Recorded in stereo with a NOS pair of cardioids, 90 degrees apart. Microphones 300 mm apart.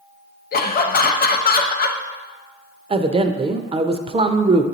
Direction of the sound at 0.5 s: 30° left.